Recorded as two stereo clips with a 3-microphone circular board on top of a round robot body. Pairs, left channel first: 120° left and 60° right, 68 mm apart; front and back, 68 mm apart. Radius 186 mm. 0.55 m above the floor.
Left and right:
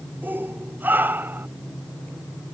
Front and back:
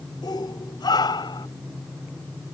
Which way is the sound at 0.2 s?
Straight ahead.